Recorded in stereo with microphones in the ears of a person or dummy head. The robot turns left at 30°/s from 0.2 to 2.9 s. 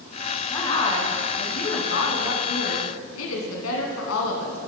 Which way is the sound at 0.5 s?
165° left.